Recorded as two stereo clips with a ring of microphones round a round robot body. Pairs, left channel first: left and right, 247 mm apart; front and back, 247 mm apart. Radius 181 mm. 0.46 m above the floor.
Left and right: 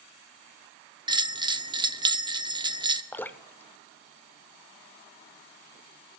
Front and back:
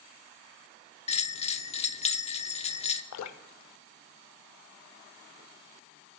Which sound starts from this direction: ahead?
Dripping, at 3.1 s.